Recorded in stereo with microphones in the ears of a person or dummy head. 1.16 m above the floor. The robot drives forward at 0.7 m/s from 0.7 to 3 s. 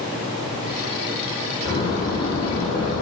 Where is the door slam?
25° left (ahead or behind), 4 m; by 3.0 s 35° left (ahead or behind), 3 m.